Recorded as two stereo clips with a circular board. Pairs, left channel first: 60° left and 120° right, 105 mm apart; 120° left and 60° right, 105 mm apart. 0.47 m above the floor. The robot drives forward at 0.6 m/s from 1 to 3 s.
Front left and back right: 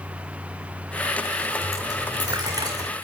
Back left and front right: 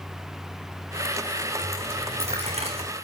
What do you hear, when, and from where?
1.6 s a dropped coin: 60° right, 5.5 m; by 2.9 s 70° right, 5 m